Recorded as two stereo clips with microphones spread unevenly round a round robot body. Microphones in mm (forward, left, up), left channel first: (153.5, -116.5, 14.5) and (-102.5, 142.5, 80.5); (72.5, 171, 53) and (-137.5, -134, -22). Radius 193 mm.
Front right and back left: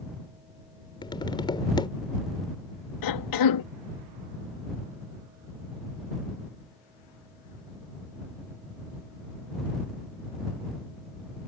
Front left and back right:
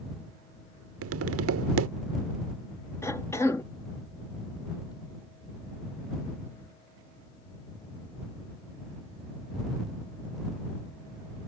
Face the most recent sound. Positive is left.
turn(degrees=-35)